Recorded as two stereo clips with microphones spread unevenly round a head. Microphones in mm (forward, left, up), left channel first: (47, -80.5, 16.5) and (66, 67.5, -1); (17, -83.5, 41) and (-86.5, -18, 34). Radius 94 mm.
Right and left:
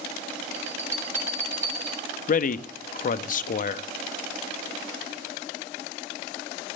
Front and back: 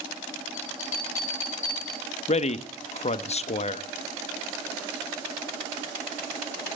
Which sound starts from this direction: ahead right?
A man speaking, at 2.3 s.